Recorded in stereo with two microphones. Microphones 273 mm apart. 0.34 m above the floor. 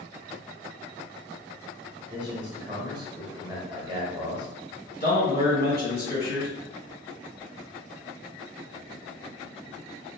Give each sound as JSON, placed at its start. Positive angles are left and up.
{"t": 2.1, "sound": "a man speaking", "side_deg": -20, "distance_m": 0.9}
{"t": 5.0, "sound": "a man speaking", "side_deg": 35, "distance_m": 1.7}